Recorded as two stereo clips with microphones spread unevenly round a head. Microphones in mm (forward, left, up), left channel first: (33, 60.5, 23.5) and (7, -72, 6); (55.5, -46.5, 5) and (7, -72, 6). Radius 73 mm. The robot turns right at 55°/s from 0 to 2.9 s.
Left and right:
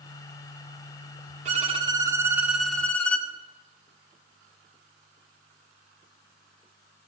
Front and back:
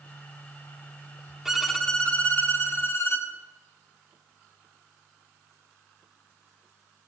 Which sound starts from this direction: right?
A violin, at 1.4 s.